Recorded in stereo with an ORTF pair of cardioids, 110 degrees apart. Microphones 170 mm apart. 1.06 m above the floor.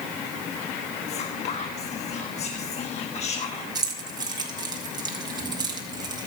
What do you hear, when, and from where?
1.1 s whispering: 40° left, 1.4 m
3.8 s keys jangling: 25° right, 4 m